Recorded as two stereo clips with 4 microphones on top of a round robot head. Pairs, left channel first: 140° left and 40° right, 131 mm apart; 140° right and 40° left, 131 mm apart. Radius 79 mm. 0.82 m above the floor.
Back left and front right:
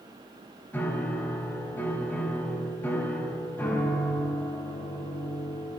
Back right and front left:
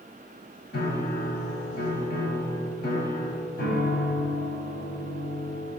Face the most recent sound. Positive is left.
turn(degrees=-145)